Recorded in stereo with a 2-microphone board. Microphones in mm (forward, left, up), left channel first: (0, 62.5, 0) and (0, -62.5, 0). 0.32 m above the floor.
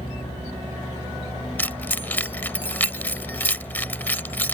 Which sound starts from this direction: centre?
Keys jangling, at 1.6 s.